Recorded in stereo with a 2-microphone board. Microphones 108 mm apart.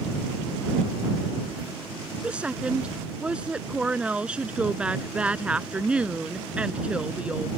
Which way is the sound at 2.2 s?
10° right (ahead or behind).